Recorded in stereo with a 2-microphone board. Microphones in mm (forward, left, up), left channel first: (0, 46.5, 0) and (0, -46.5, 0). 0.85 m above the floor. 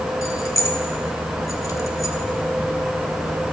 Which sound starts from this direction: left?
Keys jangling, at 0.2 s.